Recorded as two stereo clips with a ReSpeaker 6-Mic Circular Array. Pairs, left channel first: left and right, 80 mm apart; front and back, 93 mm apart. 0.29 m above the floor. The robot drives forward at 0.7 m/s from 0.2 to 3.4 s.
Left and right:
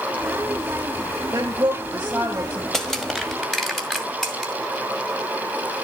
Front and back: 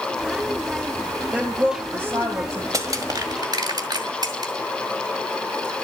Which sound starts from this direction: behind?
Crushing, at 2.7 s.